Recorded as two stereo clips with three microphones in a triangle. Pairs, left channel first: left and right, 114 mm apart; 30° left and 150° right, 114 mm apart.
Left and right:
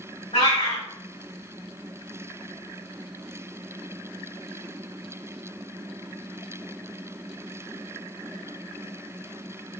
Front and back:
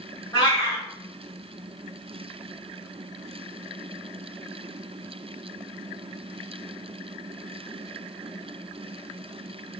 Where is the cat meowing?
75° left, 2 m.